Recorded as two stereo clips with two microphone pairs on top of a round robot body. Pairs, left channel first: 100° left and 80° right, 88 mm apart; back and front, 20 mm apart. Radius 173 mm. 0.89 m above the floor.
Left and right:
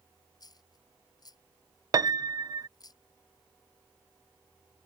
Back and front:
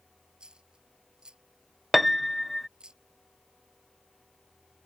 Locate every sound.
0.4 s a dropped coin: 55° left
1.9 s a piano: 75° right